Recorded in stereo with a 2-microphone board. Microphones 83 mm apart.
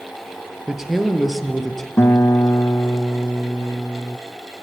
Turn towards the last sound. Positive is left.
turn(degrees=35)  # may be behind; listen again after turning